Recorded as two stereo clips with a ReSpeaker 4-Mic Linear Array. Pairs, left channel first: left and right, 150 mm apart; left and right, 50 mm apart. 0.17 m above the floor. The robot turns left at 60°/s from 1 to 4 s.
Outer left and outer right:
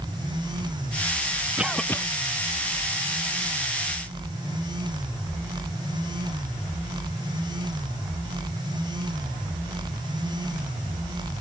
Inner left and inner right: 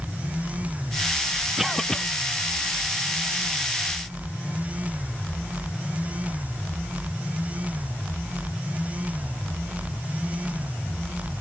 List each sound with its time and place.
1.6 s a cough: 10° right (ahead or behind); by 2.0 s 20° left (ahead or behind)